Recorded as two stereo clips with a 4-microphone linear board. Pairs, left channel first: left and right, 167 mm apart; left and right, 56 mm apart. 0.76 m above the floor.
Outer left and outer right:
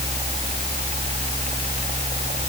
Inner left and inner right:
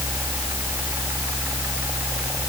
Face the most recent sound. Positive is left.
No sound to turn to.